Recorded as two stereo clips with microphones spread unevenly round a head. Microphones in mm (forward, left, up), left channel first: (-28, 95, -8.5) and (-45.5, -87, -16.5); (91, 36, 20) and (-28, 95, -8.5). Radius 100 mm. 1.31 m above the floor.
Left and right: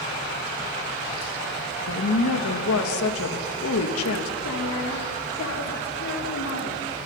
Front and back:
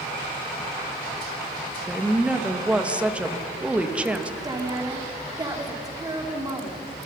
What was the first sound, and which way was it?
A woman speaking, 75° left.